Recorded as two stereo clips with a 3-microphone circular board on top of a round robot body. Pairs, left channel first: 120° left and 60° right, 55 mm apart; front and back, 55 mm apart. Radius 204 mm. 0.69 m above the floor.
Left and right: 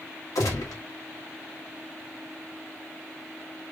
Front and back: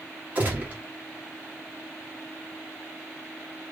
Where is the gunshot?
120° left, 1.1 m.